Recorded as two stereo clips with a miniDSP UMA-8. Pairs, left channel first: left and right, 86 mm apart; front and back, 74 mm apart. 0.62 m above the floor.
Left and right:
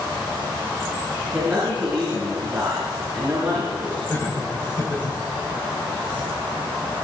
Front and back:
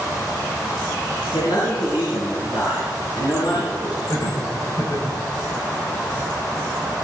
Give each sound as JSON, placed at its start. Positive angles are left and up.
{"t": 1.3, "sound": "a man speaking", "azimuth_deg": -20, "distance_m": 9.5}
{"t": 4.1, "sound": "laughter", "azimuth_deg": 35, "distance_m": 4.5}